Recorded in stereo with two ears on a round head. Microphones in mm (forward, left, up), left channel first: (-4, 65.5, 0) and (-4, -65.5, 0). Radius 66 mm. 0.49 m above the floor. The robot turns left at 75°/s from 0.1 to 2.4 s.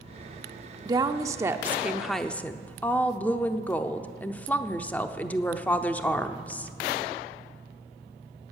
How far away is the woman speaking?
About 0.7 m.